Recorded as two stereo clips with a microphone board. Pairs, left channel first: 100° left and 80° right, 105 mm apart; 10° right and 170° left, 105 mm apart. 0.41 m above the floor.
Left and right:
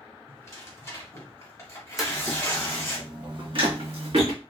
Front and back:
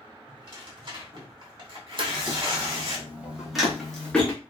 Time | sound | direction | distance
0.3 | tearing paper | 150° left | 1.2 m
2.0 | footsteps | 165° right | 0.8 m